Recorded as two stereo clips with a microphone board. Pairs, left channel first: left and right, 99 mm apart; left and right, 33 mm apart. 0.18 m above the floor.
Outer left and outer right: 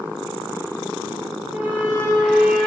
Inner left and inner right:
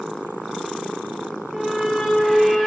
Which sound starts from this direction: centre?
A squeak, at 1.5 s.